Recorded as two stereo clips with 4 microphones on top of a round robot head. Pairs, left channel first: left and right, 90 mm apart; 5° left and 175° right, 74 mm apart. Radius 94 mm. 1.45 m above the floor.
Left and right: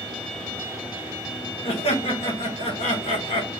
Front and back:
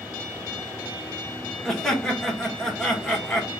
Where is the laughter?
90° left, 1.4 m.